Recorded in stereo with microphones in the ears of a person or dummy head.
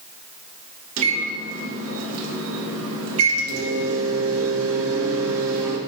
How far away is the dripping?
I don't hear dripping.